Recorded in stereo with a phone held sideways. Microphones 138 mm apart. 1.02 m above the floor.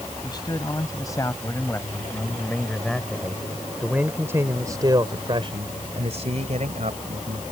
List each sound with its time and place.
0.2 s a man speaking: 30° left (ahead or behind); by 7.4 s 70° right (ahead or behind)